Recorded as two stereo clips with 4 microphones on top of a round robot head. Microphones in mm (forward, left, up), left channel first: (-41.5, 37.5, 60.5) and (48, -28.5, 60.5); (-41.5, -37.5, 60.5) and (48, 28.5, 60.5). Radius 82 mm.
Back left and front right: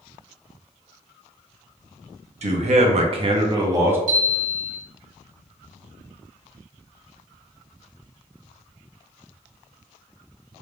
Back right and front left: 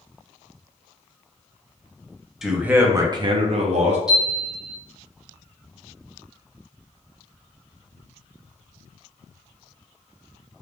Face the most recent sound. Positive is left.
turn(degrees=-50)